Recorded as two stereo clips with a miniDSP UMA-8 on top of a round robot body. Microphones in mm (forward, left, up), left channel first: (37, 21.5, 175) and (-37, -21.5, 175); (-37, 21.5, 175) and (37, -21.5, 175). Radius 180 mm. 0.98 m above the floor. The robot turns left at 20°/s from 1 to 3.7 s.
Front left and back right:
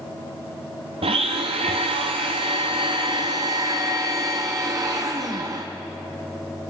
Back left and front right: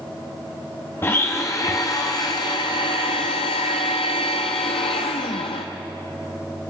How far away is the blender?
About 0.5 m.